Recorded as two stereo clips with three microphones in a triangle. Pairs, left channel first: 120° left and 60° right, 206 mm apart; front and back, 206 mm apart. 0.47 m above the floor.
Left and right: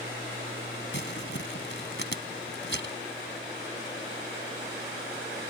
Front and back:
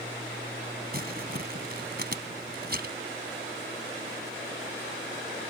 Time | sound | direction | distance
0.9 | crumpling | 140° left | ?